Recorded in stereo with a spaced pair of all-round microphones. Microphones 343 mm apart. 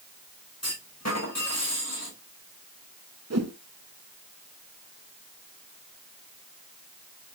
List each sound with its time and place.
0.6 s a clunk: 50° left (ahead or behind), 5 m
3.3 s a whoosh: 50° right (ahead or behind), 1.1 m